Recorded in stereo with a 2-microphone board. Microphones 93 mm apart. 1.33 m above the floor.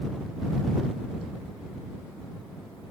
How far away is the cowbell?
I don't hear a cowbell.